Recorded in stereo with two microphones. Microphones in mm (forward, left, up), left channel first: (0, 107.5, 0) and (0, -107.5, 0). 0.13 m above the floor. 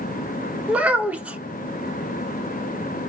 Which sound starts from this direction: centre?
A child speaking, at 0.7 s.